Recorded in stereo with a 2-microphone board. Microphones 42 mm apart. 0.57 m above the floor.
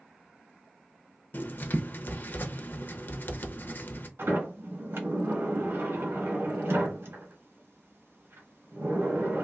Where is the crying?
I don't hear crying.